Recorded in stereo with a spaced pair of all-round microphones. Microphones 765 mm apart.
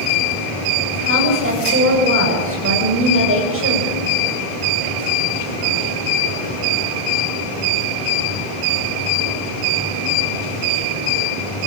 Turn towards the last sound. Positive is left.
turn(degrees=-15)  # may be behind; listen again after turning